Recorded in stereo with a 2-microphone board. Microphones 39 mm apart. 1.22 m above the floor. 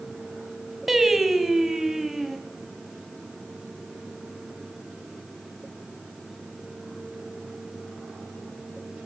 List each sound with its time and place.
0.9 s singing: 10° right (ahead or behind), 3.5 m